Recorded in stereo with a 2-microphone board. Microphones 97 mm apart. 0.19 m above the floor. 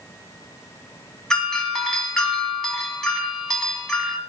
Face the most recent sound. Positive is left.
turn(degrees=5)  # may be behind; listen again after turning